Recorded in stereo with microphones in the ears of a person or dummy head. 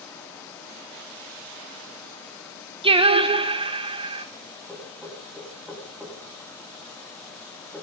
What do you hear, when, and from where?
2.8 s singing: 30° right (ahead or behind), 0.8 m
4.7 s knocking: 5° right (ahead or behind), 3 m